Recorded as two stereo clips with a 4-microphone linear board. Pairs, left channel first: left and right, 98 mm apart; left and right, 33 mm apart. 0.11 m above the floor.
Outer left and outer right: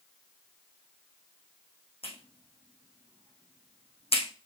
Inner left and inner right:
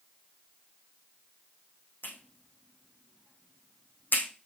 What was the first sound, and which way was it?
A clap, 75° left (ahead or behind).